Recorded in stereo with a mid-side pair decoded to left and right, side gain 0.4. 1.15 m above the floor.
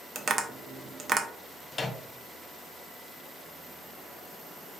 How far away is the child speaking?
I don't hear a child speaking.